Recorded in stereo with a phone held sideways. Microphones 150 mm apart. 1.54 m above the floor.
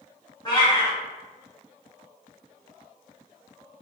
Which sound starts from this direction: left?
A cat meowing, at 0.5 s.